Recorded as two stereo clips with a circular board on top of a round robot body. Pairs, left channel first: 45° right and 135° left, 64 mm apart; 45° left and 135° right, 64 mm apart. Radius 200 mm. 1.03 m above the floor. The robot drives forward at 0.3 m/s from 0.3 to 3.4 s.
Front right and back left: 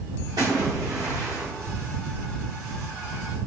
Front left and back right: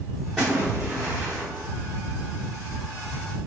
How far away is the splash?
About 0.6 m.